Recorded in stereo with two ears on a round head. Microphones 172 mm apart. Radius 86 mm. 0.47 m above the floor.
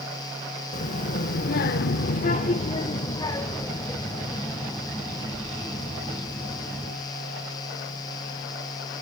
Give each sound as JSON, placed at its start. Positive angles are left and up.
{"t": 0.7, "sound": "a child speaking", "side_deg": 40, "distance_m": 1.1}